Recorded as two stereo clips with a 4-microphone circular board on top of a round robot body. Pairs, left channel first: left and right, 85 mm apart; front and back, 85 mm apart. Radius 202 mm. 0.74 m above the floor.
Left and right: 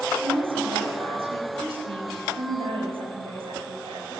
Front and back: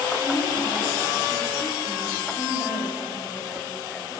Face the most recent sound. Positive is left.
turn(degrees=-90)